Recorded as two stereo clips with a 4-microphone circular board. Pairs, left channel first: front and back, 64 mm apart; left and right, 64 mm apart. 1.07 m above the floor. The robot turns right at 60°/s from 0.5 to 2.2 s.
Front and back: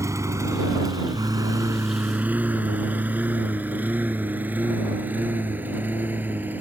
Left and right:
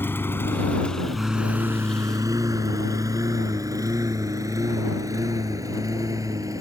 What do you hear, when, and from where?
0.0 s a lawn mower: 145° left; by 6.6 s 120° right